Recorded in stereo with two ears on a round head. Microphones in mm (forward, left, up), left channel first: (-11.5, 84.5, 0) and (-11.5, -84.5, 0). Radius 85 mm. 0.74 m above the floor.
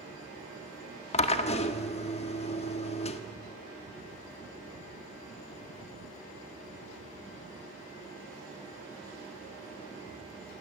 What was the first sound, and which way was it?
A drill, 35° left (ahead or behind).